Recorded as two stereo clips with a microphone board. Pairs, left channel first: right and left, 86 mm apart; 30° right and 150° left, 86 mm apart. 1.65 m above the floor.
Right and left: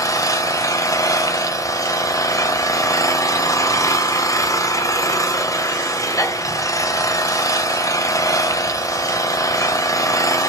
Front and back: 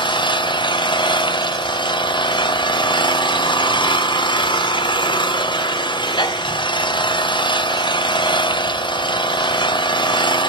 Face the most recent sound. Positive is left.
turn(degrees=-45)